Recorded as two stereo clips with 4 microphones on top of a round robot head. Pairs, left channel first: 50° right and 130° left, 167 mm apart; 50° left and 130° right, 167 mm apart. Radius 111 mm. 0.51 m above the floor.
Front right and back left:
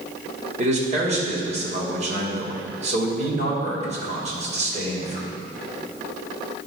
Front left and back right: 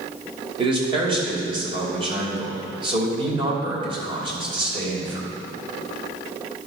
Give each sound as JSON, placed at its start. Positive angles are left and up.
{"t": 0.6, "sound": "a man speaking", "azimuth_deg": 175, "distance_m": 3.0}